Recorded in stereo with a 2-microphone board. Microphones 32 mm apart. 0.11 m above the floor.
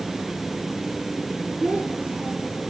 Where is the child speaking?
55° right (ahead or behind), 3 m.